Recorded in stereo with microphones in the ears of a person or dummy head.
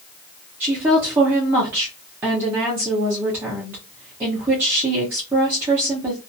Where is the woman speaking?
10° right (ahead or behind), 0.7 m.